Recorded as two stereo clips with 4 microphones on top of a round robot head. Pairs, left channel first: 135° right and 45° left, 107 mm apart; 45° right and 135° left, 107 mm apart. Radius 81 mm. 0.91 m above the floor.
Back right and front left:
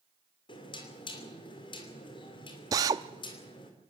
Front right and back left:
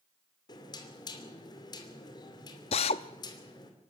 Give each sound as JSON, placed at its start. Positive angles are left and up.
{"t": 0.5, "sound": "knocking", "azimuth_deg": -95, "distance_m": 3.0}
{"t": 2.7, "sound": "a drill", "azimuth_deg": -15, "distance_m": 0.5}